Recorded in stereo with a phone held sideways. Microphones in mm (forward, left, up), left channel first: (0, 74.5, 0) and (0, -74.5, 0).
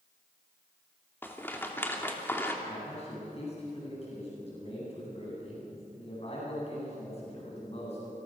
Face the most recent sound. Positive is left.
turn(degrees=40)  # may be behind; listen again after turning